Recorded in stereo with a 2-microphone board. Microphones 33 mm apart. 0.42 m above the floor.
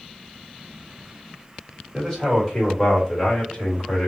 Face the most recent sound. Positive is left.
turn(degrees=40)  # may be behind; listen again after turning